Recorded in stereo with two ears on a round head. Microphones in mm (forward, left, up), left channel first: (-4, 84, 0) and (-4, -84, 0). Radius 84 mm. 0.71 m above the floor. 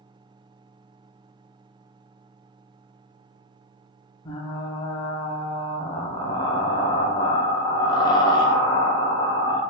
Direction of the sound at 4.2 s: 20° left (ahead or behind).